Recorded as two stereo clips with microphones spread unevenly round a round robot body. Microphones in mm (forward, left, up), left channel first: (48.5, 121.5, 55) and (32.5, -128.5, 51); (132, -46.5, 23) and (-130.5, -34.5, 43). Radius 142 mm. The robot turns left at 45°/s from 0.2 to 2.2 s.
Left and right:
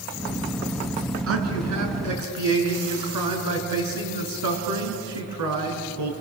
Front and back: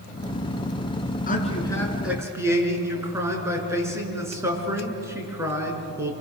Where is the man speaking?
60° right, 5 m; by 6.1 s 105° right, 5 m.